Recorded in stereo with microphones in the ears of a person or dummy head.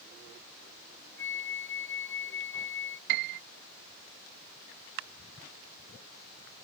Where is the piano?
60° right (ahead or behind).